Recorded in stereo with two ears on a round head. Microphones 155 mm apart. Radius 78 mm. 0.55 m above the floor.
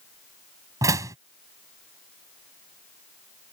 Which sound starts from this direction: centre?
A door slam, at 0.8 s.